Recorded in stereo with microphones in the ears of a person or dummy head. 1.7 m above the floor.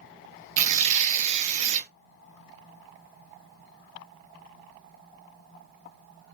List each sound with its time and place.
0.6 s tearing paper: 40° right (ahead or behind), 0.5 m